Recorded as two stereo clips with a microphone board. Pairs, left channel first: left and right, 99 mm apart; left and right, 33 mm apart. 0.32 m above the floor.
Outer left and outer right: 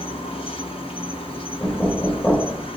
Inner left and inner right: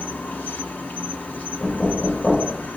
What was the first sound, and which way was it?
An insect, 75° left (ahead or behind).